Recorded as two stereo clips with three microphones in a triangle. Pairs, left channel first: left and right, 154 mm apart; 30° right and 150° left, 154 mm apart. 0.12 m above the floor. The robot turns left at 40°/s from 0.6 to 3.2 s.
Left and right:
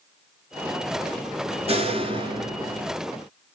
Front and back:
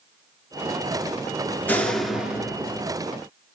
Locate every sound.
1.7 s a door slam: 105° right, 1.5 m; by 2.9 s 150° right, 1.5 m